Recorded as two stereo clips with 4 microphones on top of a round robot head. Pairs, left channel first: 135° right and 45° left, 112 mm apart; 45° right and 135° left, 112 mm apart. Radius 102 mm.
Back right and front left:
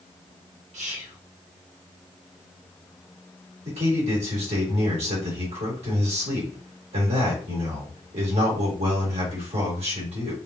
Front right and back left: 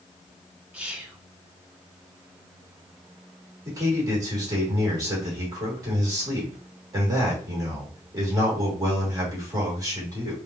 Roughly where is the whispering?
Ahead left.